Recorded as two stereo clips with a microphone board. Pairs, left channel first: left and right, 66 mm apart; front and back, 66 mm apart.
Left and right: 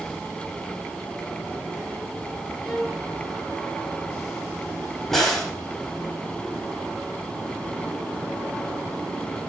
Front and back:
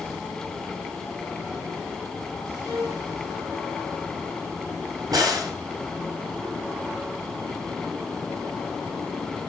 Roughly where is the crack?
Behind.